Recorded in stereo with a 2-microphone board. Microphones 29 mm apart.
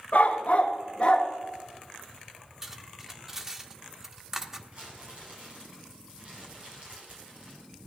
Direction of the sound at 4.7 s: 50° right (ahead or behind).